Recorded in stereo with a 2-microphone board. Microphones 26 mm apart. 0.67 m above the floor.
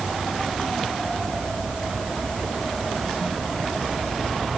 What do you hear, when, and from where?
Only background noise.